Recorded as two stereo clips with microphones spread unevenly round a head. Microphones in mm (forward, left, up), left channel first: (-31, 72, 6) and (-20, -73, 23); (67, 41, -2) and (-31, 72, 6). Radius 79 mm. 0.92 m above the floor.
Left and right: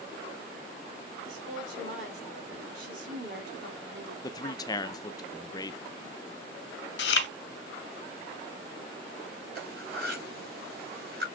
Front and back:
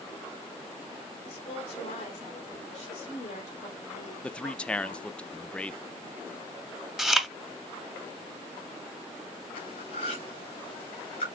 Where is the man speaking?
50° left, 0.5 m.